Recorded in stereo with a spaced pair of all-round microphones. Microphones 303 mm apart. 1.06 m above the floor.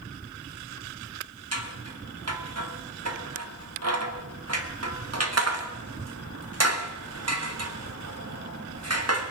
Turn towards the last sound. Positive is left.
turn(degrees=-55)  # may be behind; listen again after turning